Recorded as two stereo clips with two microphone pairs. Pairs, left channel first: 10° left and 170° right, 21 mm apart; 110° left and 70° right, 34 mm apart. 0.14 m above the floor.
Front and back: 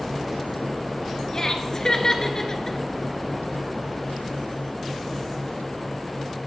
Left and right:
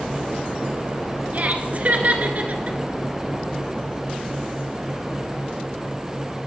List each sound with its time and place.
1.3 s laughter: 40° right, 1.8 m